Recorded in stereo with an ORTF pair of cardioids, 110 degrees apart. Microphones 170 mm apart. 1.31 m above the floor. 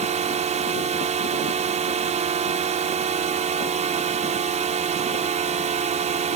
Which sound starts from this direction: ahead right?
A drone, at 0.0 s.